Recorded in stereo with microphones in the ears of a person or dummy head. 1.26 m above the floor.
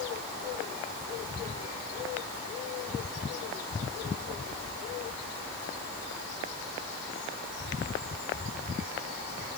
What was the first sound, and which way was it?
Only background noise.